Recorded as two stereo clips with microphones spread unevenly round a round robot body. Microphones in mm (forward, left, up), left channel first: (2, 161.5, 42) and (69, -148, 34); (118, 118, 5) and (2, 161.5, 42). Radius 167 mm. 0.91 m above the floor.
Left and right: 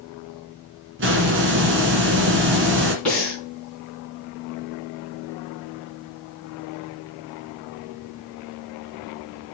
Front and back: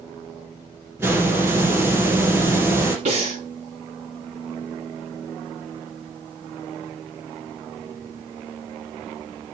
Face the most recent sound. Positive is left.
turn(degrees=-170)